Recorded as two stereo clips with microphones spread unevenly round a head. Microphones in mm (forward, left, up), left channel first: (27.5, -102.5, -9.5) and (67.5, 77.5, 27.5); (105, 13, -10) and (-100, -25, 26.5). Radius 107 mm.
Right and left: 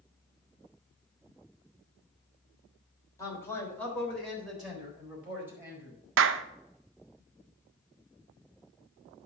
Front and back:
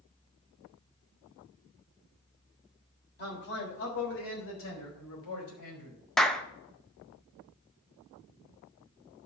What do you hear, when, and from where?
3.2 s a man speaking: 30° right, 3.5 m; by 6.0 s straight ahead, 4.5 m
6.2 s a clap: 90° left, 0.6 m